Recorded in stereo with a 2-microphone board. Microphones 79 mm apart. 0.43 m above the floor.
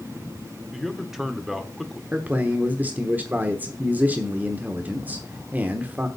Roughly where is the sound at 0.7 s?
Centre.